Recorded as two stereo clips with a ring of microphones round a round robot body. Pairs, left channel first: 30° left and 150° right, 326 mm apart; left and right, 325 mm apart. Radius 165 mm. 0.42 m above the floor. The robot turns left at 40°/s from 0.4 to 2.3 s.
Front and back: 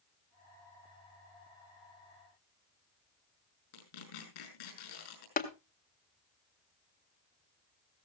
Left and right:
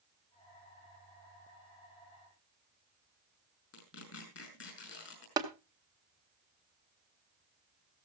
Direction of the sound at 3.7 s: 40° left.